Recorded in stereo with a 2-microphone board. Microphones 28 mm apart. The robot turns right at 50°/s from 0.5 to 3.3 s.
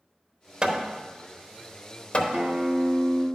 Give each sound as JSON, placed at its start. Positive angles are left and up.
{"t": 0.6, "sound": "hammering", "side_deg": -30, "distance_m": 0.8}
{"t": 2.3, "sound": "a guitar", "azimuth_deg": -75, "distance_m": 1.6}